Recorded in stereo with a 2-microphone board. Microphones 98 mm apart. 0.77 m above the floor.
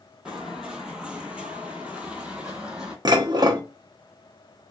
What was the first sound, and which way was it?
Footsteps, 5° right (ahead or behind).